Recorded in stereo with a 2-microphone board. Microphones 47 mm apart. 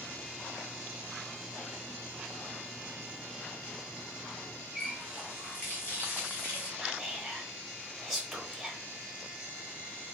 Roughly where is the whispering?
Centre.